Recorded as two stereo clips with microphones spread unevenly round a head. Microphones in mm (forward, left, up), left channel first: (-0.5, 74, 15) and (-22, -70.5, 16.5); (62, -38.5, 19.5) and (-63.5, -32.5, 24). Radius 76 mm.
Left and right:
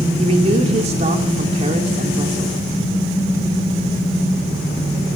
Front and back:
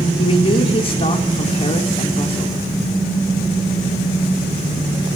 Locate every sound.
0.2 s a man speaking: 45° right, 2.5 m